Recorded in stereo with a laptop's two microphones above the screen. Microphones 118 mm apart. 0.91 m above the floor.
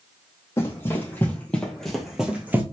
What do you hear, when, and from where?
0.6 s running footsteps: 25° left (ahead or behind), 2.5 m; by 2.6 s 20° right (ahead or behind), 1.6 m